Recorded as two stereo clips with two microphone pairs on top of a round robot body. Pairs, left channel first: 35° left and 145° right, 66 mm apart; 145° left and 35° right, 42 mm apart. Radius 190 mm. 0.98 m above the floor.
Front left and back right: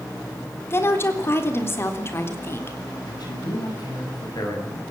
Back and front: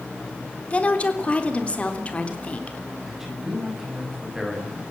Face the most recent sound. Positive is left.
turn(degrees=45)